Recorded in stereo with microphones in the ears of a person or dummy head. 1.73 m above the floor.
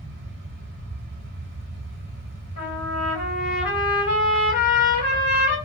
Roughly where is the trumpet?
Left.